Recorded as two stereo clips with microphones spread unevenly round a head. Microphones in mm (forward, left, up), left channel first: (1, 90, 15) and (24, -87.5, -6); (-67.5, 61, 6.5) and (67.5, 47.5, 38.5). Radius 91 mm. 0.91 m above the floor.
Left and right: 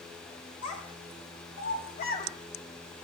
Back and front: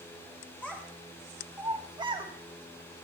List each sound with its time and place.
0.6 s a child speaking: 90° left, 1.9 m; by 2.3 s 45° left, 1.6 m